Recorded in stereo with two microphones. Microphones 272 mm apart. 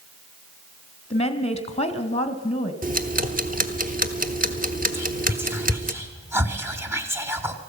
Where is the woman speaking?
20° left (ahead or behind), 1.3 m.